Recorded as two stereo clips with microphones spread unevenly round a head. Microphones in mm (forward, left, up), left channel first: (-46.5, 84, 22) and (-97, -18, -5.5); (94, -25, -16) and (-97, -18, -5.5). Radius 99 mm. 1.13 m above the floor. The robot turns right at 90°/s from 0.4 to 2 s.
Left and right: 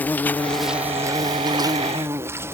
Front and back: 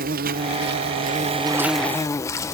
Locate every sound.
0.0 s an insect: 150° left; by 2.5 s 70° right